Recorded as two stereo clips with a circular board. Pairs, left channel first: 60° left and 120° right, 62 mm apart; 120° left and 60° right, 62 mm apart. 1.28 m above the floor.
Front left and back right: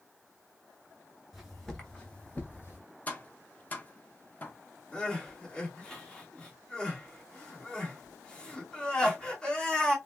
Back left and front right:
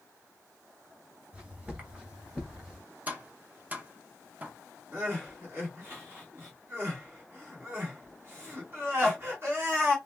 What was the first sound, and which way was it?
Footsteps, 45° right.